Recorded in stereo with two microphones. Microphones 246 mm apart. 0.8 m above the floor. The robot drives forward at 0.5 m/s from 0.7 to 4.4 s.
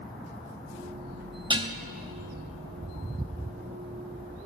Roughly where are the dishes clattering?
Right.